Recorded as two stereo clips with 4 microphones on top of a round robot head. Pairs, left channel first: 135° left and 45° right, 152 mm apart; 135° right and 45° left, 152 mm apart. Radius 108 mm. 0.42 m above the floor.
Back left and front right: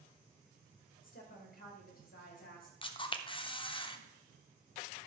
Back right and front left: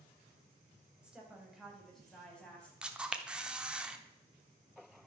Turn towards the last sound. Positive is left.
turn(degrees=125)